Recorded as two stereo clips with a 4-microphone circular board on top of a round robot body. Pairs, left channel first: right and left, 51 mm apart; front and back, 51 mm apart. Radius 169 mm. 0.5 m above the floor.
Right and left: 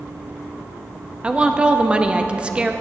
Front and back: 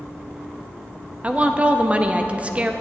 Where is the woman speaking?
140° left, 0.8 m.